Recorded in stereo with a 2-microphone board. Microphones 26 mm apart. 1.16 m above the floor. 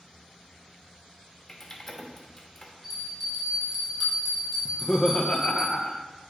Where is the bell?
10° right (ahead or behind), 3.5 m.